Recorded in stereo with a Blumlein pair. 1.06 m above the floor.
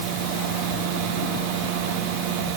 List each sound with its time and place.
Only background noise.